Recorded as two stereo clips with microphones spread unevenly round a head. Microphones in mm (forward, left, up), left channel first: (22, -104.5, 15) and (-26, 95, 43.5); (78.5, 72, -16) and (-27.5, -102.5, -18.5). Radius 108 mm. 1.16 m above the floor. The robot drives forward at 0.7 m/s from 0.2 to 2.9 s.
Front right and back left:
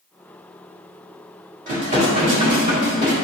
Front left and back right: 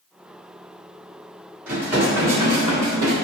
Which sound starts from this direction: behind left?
Dishes clattering, at 1.7 s.